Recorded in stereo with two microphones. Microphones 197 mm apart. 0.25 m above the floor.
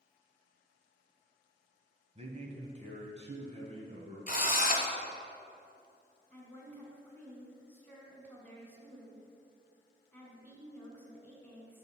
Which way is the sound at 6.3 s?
10° left (ahead or behind).